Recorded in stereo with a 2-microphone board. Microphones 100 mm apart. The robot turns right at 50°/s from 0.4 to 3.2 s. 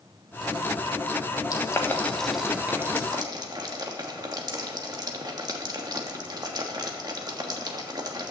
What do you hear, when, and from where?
1.5 s boiling: 40° left (ahead or behind), 1.4 m; by 8.3 s 45° right (ahead or behind), 1.4 m